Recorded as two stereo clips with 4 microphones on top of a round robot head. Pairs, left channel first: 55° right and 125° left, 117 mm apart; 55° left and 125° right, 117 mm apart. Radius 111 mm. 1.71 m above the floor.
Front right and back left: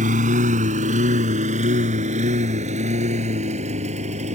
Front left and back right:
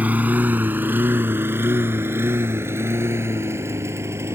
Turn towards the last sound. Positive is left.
turn(degrees=165)